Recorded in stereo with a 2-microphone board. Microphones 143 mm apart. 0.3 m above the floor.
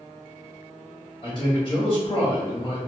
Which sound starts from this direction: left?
A man speaking, at 1.2 s.